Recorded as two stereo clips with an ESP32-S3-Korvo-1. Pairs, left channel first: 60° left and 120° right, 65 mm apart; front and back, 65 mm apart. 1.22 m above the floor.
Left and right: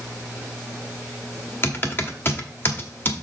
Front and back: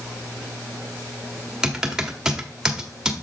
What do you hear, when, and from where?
1.6 s typing on a keyboard: 105° left, 1.3 m